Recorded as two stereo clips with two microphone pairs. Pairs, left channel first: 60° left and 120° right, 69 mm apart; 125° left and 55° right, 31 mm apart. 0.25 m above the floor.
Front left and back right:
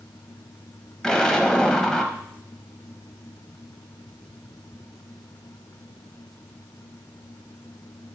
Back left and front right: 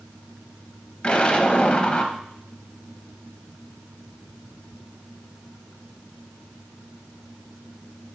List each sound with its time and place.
1.0 s an explosion: 130° left, 0.7 m